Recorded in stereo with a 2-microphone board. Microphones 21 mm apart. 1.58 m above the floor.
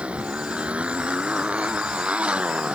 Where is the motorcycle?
80° right.